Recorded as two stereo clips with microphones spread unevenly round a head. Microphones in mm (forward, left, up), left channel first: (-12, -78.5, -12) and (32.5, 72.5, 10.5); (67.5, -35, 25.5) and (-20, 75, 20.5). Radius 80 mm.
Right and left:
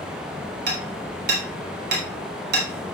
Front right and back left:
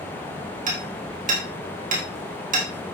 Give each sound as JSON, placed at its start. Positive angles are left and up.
{"t": 0.7, "sound": "hammering", "azimuth_deg": 100, "distance_m": 4.5}